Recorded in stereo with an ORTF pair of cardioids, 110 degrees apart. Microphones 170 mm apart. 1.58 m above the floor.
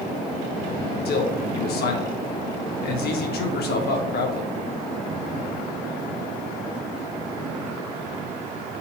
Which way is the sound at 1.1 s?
65° left.